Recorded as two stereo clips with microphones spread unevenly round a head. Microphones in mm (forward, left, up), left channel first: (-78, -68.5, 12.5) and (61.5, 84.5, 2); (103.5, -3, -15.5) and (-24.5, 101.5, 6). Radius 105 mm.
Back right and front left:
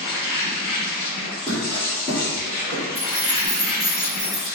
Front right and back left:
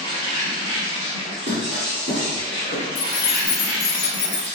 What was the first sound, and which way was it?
An insect, 175° right.